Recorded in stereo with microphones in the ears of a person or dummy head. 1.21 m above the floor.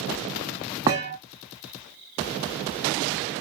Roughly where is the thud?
Centre.